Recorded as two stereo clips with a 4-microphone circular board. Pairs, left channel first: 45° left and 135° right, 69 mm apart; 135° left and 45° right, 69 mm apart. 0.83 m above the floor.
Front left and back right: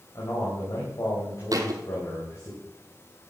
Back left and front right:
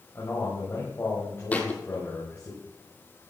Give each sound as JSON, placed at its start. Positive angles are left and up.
{"t": 0.1, "sound": "a man speaking", "azimuth_deg": 80, "distance_m": 5.0}
{"t": 1.5, "sound": "a thud", "azimuth_deg": -155, "distance_m": 1.6}